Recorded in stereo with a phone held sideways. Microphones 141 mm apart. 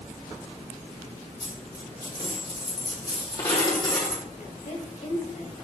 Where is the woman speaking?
65° left (ahead or behind), 2 m.